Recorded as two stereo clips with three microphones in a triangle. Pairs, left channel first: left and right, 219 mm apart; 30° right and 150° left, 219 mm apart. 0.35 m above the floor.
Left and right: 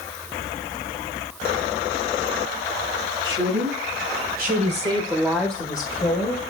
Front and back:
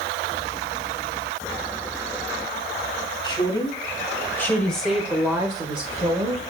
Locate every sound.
3.2 s a woman speaking: 95° right, 2.5 m; by 6.4 s 110° left, 1.6 m